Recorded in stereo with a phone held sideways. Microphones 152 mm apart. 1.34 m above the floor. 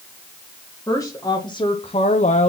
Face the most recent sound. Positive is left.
turn(degrees=45)  # may be behind; listen again after turning